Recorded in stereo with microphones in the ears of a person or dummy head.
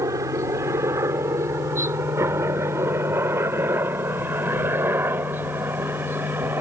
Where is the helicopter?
25° right (ahead or behind); by 6.6 s 20° right (ahead or behind).